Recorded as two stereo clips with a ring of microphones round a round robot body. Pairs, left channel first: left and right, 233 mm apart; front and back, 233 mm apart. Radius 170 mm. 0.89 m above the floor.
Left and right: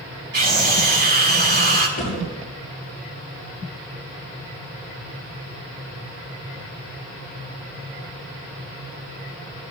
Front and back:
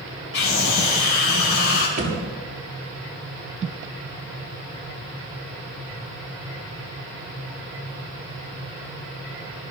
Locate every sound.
0.3 s a scream: 50° right, 3.5 m
2.0 s a thud: 145° left, 8.5 m